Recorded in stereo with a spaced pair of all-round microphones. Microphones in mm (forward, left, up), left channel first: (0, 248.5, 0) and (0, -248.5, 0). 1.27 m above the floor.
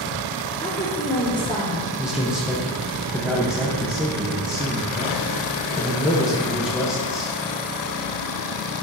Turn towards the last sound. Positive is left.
turn(degrees=0)  # may be behind; listen again after turning